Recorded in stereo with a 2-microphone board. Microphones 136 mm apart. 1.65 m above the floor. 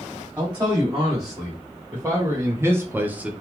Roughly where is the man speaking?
Centre.